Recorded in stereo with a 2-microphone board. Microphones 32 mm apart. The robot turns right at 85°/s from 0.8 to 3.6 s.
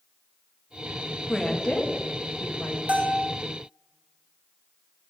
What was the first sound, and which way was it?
A woman speaking, 5° left (ahead or behind).